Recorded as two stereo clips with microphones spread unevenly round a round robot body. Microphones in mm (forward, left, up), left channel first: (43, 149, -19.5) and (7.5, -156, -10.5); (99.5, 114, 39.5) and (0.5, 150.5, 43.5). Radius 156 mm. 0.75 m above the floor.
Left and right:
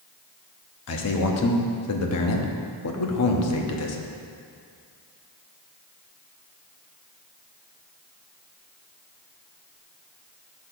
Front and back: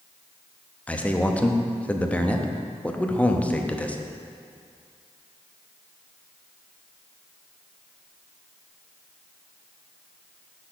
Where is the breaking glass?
No breaking glass in this recording.